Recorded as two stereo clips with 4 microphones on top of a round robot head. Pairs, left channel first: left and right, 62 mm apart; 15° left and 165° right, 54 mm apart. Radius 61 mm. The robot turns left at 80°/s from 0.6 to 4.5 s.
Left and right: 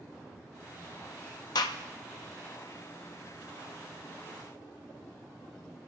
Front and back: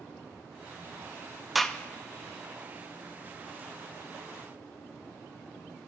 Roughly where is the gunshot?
Left.